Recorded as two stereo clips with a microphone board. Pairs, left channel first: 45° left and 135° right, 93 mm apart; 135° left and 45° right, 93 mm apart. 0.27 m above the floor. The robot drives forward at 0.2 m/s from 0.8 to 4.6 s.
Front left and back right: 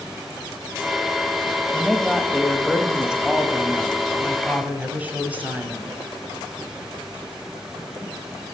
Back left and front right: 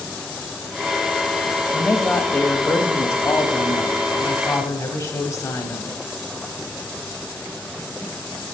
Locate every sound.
1.7 s a woman speaking: 130° left, 0.9 m; by 6.0 s 160° left, 1.2 m